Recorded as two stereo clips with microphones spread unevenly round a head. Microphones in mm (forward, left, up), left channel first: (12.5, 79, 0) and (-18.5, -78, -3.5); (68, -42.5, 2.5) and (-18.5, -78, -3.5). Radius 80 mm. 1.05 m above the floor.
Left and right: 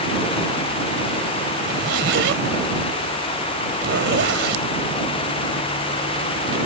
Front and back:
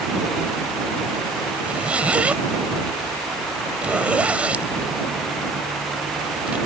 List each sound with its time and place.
1.6 s a zipper: 80° right